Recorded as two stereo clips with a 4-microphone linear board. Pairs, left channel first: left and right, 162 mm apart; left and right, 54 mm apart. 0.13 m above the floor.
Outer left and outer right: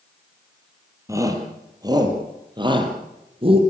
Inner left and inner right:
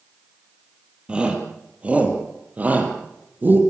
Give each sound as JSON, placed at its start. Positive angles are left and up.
{"t": 1.1, "sound": "a shout", "side_deg": -20, "distance_m": 4.0}